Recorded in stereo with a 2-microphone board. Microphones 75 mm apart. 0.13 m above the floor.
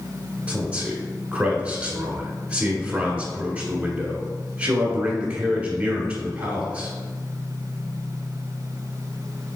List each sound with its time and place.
0.5 s a man speaking: 20° right (ahead or behind), 1.2 m